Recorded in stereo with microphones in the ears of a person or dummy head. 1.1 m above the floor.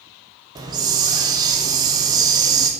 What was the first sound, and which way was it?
A hiss, 20° right (ahead or behind).